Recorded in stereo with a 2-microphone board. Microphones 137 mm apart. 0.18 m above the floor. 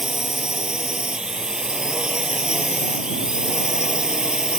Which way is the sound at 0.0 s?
5° right (ahead or behind).